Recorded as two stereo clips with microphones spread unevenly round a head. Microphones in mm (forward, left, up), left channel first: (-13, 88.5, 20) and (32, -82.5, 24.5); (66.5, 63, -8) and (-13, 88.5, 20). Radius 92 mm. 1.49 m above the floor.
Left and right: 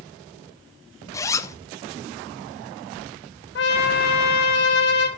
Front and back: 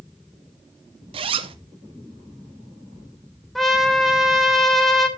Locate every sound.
1.1 s a zipper: straight behind, 0.8 m
3.5 s a trumpet: 80° left, 2.5 m